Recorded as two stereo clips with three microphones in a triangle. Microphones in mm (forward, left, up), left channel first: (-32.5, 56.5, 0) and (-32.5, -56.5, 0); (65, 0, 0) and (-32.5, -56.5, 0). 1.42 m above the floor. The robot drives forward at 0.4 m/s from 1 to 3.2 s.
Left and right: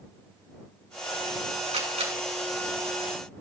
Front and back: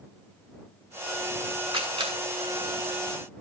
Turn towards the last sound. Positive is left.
turn(degrees=-110)